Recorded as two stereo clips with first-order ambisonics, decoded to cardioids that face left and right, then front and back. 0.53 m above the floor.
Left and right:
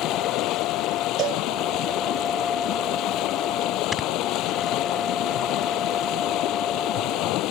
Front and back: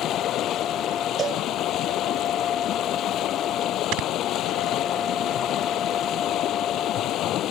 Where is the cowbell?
125° right.